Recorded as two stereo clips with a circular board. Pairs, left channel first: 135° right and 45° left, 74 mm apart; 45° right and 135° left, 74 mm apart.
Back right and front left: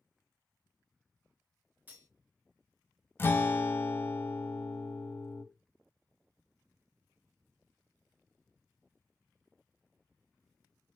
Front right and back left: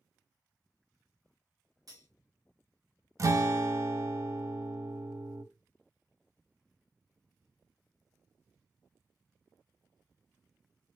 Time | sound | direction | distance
1.9 | cutlery clinking | 105° left | 1.5 m
3.2 | a guitar | 170° left | 0.6 m